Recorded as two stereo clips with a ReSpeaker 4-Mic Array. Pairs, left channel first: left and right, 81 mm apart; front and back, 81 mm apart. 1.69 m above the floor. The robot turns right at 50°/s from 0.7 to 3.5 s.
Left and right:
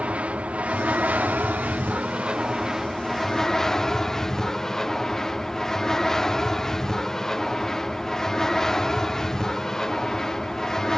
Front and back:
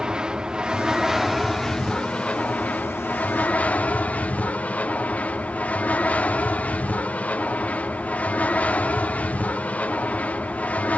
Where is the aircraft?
120° right; by 11.0 s 20° left.